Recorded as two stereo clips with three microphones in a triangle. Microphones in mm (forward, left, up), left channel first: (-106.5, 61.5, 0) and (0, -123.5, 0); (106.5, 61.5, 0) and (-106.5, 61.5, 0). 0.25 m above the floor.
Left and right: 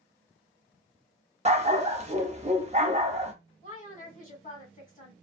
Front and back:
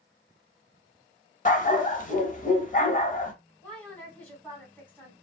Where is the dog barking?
25° right, 0.6 m.